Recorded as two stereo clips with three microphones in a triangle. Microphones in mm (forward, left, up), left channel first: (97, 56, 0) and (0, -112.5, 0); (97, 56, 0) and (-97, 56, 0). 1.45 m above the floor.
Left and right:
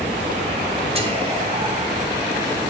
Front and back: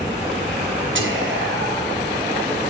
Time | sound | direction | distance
0.9 | whispering | straight behind | 0.7 m